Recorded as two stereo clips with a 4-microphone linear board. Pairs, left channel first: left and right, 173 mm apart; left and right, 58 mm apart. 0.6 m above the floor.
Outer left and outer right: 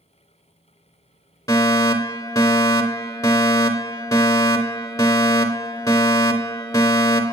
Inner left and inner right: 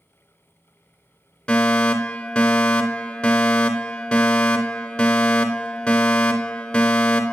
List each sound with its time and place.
1.5 s a fire alarm: 20° left (ahead or behind), 3 m